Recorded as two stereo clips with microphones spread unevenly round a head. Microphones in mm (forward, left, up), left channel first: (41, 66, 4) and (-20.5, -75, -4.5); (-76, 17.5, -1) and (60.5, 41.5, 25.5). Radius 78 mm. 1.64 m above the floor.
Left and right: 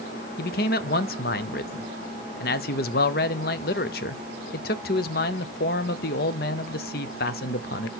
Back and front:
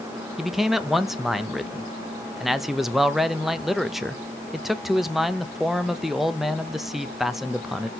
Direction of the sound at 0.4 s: 100° left.